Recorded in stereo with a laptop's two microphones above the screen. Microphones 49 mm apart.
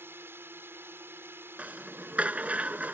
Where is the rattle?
25° right (ahead or behind).